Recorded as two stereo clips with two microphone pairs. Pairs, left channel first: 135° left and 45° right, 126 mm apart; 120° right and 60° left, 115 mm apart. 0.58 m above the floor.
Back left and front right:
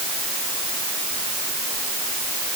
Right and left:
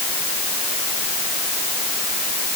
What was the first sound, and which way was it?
Only background noise.